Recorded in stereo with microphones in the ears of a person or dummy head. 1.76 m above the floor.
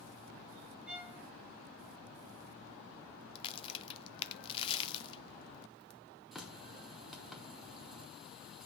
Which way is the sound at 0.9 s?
5° right (ahead or behind).